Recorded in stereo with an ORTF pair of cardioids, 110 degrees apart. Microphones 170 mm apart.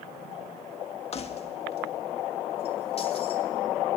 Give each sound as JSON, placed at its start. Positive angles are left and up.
{"t": 1.1, "sound": "keys jangling", "azimuth_deg": 40, "distance_m": 1.5}